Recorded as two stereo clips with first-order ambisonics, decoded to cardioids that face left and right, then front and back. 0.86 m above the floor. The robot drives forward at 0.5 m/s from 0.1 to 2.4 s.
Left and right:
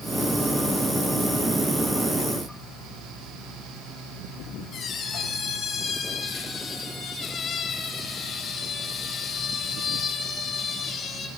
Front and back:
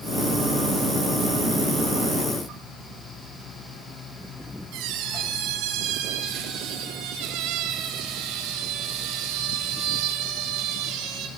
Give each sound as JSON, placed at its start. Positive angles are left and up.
{"t": 4.7, "sound": "a squeak", "azimuth_deg": 155, "distance_m": 3.0}